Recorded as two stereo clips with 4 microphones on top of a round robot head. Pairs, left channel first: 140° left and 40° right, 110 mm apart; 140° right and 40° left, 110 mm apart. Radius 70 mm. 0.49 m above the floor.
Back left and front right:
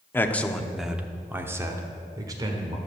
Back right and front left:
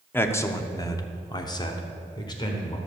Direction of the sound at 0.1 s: Straight behind.